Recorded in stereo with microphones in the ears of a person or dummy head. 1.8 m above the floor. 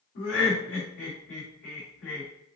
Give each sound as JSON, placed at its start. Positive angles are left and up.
{"t": 0.1, "sound": "laughter", "side_deg": 60, "distance_m": 2.5}